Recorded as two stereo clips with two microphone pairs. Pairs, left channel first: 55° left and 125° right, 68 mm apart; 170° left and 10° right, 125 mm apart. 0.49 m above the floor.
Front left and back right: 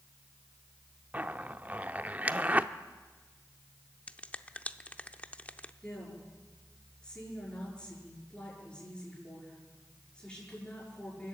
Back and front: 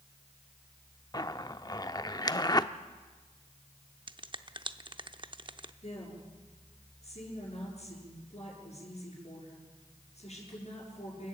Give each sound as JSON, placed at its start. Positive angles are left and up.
{"t": 1.1, "sound": "a zipper", "azimuth_deg": -170, "distance_m": 0.6}
{"t": 4.1, "sound": "a finger snap", "azimuth_deg": 0, "distance_m": 0.6}
{"t": 5.8, "sound": "a woman speaking", "azimuth_deg": 130, "distance_m": 7.0}